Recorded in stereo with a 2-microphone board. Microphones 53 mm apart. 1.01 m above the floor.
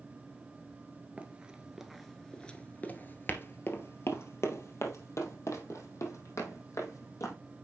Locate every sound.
1.2 s running footsteps: 25° right (ahead or behind), 1.2 m; by 7.3 s 75° left (ahead or behind), 3.5 m